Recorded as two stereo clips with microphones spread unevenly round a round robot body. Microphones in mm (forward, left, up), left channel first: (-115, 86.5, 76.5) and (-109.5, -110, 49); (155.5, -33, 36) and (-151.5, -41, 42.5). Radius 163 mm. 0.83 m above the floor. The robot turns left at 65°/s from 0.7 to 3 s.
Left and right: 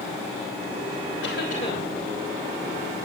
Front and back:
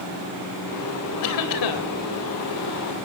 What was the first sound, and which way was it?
A cough, 45° left.